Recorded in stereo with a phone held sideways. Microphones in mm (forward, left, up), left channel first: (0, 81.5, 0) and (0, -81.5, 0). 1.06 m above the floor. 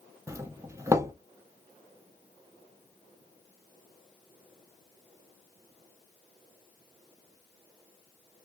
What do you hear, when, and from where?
0.3 s a doorbell: 20° right (ahead or behind), 0.5 m